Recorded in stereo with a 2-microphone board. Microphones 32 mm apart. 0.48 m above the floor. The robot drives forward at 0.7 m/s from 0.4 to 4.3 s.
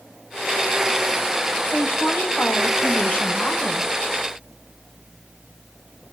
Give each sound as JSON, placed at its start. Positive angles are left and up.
{"t": 1.6, "sound": "a woman speaking", "side_deg": 60, "distance_m": 3.5}